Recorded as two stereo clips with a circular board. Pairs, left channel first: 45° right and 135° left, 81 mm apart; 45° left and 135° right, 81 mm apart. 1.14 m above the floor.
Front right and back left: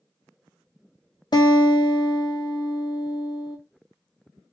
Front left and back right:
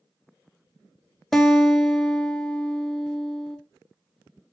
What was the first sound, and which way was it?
A guitar, 40° right.